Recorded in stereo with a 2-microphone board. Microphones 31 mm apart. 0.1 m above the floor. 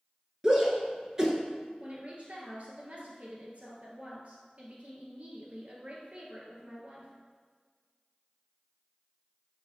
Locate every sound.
0.4 s a shout: 20° right (ahead or behind), 1.1 m
1.8 s a woman speaking: 45° right (ahead or behind), 1.7 m